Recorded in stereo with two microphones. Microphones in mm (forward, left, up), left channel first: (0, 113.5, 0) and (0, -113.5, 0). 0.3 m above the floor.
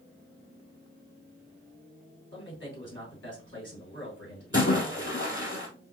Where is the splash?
55° left (ahead or behind), 1.8 m.